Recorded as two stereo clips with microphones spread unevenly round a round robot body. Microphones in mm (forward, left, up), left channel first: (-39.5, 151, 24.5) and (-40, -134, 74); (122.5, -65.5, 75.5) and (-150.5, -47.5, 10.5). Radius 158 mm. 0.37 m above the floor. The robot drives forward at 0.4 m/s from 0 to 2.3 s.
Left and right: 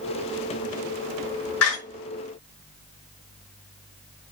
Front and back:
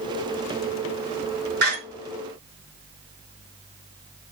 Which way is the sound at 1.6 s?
125° left.